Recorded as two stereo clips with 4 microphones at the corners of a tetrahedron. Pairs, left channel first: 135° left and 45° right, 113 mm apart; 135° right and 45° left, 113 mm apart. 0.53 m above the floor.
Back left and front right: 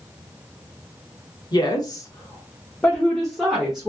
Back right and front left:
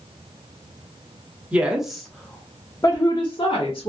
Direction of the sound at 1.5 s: 115° left.